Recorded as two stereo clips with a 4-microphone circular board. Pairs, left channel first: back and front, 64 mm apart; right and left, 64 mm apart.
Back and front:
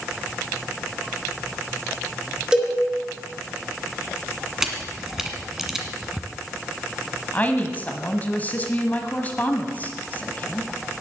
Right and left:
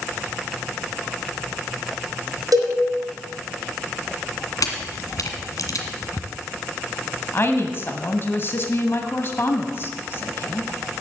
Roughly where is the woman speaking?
Behind right.